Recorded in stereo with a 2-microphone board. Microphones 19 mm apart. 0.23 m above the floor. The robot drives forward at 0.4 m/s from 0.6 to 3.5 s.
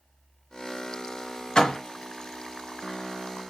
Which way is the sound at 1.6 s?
40° left (ahead or behind).